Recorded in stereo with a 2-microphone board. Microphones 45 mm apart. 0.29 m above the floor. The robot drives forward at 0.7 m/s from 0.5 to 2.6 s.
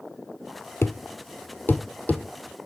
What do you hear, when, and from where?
0.8 s a thud: 75° left (ahead or behind), 0.7 m; by 2.2 s 35° left (ahead or behind), 1.1 m